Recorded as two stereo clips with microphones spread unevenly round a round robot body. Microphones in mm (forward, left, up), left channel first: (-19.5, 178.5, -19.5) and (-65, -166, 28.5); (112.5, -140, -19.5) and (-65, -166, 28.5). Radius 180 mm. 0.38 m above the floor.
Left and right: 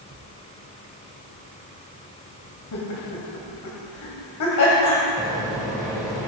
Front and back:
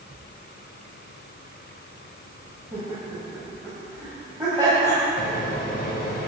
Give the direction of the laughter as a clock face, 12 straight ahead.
8 o'clock.